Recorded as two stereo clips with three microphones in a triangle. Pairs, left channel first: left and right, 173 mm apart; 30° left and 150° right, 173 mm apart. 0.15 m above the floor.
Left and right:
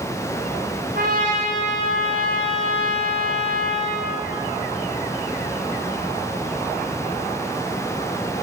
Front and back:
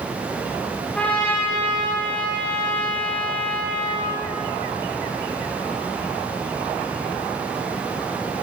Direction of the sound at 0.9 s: 55° right.